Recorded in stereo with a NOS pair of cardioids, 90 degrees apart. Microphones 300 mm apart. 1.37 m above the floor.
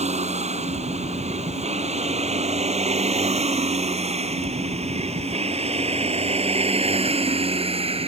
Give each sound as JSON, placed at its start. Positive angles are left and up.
{"t": 0.0, "sound": "a vehicle", "azimuth_deg": -20}